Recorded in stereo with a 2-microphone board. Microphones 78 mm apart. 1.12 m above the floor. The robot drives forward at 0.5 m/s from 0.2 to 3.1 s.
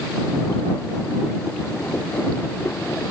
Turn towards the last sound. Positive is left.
No sound to turn to.